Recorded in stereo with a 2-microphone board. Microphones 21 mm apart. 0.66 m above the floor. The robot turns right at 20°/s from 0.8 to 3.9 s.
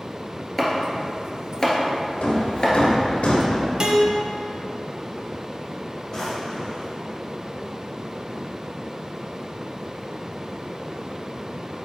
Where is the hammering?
85° left, 1.2 m; by 3.6 s 60° left (ahead or behind), 1.2 m.